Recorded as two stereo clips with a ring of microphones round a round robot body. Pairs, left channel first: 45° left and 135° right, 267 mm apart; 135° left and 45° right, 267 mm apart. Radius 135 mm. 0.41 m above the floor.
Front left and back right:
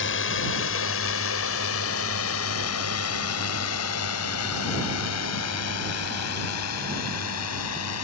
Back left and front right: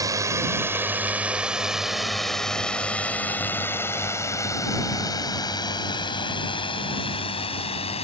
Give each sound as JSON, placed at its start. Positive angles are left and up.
{"t": 0.0, "sound": "a drone", "azimuth_deg": 30}